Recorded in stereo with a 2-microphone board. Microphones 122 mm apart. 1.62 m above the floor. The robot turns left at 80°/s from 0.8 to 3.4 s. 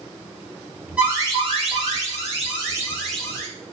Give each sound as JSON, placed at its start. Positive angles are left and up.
{"t": 1.0, "sound": "an alarm", "azimuth_deg": -10, "distance_m": 3.0}